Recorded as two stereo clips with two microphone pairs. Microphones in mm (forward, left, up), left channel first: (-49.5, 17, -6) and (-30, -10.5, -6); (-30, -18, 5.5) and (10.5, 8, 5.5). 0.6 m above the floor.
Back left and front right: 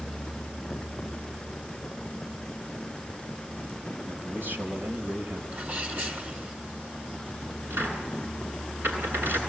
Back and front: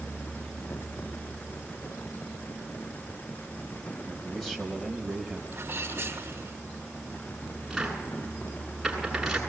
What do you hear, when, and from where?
4.0 s a man speaking: 65° right, 4 m; by 5.4 s 60° right, 5 m
5.5 s a sneeze: 20° right, 4 m
7.7 s a cupboard door: 50° right, 8.5 m